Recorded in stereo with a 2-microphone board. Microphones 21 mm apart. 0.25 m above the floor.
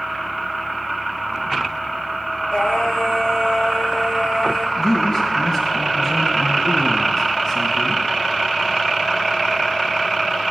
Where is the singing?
55° left (ahead or behind), 2.5 m.